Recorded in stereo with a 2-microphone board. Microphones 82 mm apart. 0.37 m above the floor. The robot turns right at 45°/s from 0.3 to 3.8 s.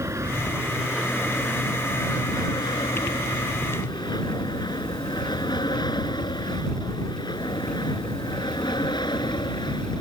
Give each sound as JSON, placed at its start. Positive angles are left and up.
{"t": 0.0, "sound": "an aircraft", "side_deg": -35}